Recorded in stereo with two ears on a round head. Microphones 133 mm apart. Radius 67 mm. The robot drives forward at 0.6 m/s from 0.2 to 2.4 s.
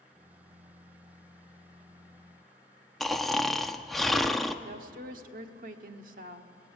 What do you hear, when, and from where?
3.0 s snoring: centre (ahead or behind), 0.8 m
4.7 s a woman speaking: 60° right (ahead or behind), 1.5 m